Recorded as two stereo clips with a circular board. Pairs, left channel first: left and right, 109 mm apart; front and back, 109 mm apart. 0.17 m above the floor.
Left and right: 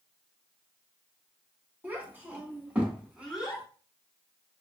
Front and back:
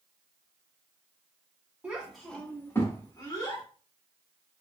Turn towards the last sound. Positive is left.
turn(degrees=-5)